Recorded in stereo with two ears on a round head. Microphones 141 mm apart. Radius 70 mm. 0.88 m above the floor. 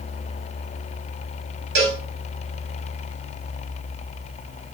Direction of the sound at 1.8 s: 85° right.